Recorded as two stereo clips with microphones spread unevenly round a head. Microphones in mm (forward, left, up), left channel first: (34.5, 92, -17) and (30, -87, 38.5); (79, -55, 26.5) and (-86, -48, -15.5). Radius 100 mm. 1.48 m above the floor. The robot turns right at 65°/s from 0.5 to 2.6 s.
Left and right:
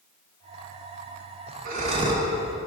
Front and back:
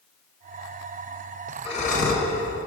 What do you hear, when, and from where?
1.6 s breathing: 55° right, 1.4 m; by 2.3 s 15° right, 1.4 m